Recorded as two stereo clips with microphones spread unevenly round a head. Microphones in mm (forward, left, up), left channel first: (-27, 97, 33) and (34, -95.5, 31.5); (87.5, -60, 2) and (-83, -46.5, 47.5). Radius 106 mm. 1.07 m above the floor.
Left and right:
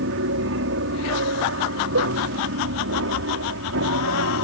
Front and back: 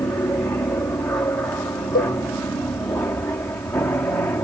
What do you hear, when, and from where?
0.0 s an aircraft: 80° right
1.9 s a cowbell: 40° right